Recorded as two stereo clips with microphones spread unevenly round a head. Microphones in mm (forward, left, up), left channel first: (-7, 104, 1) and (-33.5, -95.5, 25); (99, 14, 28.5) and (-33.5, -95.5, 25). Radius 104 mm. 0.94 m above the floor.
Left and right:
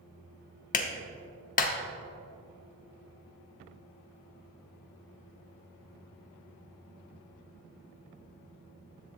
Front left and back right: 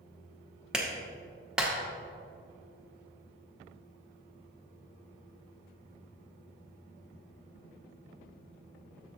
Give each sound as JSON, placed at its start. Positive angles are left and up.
{"t": 0.7, "sound": "a clap", "azimuth_deg": 135, "distance_m": 0.8}